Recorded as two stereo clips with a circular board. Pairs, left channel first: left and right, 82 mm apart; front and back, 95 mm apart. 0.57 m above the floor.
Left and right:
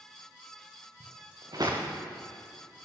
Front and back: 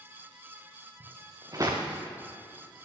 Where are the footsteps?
130° right, 3 m.